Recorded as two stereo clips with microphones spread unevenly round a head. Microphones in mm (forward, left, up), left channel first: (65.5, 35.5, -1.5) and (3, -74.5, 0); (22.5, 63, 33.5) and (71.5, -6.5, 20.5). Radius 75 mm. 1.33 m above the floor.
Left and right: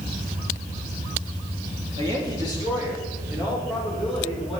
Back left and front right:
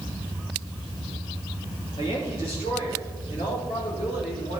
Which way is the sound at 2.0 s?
Straight behind.